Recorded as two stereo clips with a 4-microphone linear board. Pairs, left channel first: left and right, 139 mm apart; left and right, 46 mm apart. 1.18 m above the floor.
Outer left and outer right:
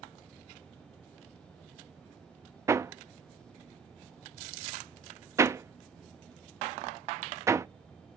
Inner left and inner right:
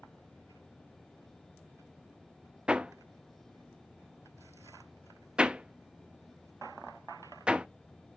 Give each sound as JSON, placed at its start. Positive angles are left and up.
{"t": 2.7, "sound": "hammering", "side_deg": -20, "distance_m": 0.6}